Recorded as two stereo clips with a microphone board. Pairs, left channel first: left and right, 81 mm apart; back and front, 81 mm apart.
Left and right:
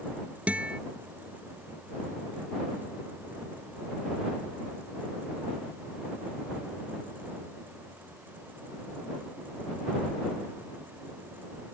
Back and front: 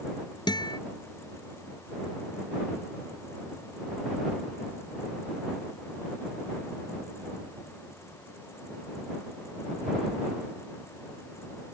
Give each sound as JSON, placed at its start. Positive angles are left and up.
{"t": 0.5, "sound": "a guitar", "azimuth_deg": -165}